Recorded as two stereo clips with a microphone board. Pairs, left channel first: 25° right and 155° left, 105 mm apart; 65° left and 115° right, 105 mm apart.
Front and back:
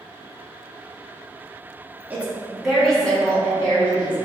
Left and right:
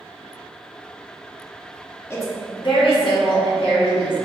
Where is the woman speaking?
100° left, 0.7 m; by 4.2 s 50° left, 2.0 m.